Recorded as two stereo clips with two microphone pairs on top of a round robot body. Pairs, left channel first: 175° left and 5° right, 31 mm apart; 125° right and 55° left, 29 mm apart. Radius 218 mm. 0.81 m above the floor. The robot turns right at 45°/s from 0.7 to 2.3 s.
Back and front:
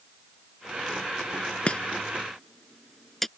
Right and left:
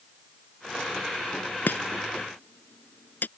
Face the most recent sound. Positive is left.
turn(degrees=-110)